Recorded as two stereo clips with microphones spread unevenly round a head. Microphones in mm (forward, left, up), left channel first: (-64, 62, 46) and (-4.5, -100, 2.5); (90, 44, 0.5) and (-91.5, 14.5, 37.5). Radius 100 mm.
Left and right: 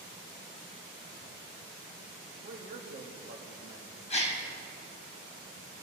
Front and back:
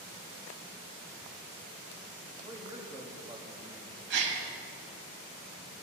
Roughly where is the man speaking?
Right.